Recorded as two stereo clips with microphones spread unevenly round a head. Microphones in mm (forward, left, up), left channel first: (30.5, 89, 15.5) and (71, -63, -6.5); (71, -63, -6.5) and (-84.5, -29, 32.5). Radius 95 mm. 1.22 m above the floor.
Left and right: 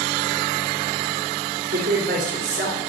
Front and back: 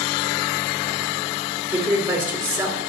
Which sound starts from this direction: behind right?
A woman speaking, at 1.7 s.